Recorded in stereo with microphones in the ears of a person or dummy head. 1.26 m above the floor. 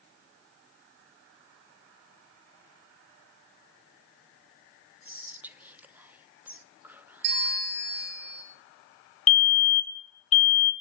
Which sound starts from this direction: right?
A bell, at 7.2 s.